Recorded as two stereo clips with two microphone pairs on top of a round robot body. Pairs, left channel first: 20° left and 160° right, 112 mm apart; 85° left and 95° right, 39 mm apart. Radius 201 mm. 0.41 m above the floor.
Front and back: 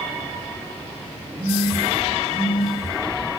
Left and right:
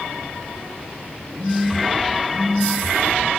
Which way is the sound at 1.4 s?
95° right.